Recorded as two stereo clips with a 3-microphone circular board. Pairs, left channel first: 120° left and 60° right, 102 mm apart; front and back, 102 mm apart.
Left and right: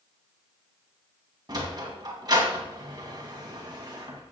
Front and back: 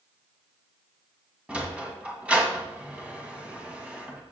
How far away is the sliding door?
About 2.5 m.